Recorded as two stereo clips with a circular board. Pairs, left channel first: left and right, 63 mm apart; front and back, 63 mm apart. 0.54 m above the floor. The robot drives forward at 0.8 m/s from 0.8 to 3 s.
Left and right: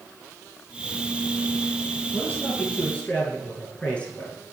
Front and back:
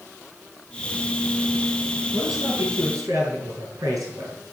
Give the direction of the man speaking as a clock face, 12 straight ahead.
7 o'clock.